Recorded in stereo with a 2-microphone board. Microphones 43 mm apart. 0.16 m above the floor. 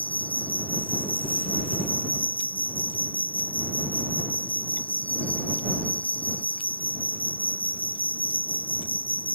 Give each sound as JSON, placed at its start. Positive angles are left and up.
{"t": 0.0, "sound": "an insect", "side_deg": 35}